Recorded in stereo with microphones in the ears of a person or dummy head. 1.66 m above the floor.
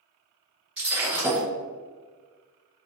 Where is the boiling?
I don't hear boiling.